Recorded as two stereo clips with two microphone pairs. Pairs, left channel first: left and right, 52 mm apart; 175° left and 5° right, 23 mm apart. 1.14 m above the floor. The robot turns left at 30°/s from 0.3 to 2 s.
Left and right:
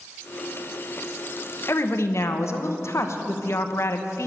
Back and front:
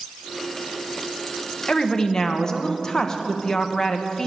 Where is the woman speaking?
120° left, 0.8 m; by 4.3 s 110° left, 0.8 m.